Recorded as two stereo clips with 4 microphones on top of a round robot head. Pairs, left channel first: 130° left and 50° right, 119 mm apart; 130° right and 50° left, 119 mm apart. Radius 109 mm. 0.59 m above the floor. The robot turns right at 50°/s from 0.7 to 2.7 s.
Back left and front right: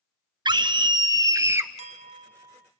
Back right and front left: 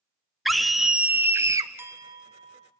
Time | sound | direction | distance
0.5 | a scream | 40° right | 0.7 m
1.8 | a clink | 20° right | 1.2 m